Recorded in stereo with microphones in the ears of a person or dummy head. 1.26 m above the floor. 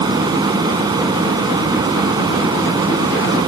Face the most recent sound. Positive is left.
turn(degrees=-25)  # may be behind; listen again after turning